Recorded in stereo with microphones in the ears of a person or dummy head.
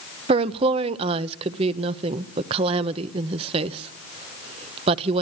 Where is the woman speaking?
35° right (ahead or behind), 0.8 m.